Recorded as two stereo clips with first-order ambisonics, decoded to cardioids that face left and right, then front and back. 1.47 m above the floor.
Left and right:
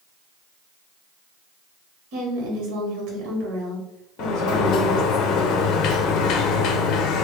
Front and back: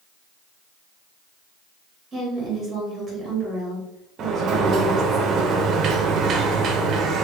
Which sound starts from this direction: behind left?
A sliding door, at 4.2 s.